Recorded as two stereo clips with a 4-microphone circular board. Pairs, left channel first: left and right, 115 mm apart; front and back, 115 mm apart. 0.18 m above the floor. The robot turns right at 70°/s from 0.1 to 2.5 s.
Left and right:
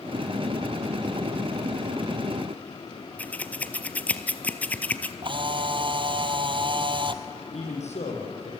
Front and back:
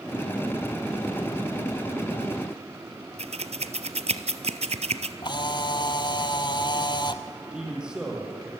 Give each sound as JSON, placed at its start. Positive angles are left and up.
{"t": 3.2, "sound": "scissors", "azimuth_deg": 165, "distance_m": 0.9}
{"t": 5.2, "sound": "a camera shutter", "azimuth_deg": -50, "distance_m": 0.9}
{"t": 7.5, "sound": "a man speaking", "azimuth_deg": 95, "distance_m": 5.5}